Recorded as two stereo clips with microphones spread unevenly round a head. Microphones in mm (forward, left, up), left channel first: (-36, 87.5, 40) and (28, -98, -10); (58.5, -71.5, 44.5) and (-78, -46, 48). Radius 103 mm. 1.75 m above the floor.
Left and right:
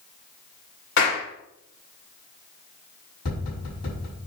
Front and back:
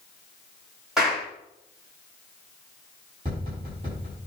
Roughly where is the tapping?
Left.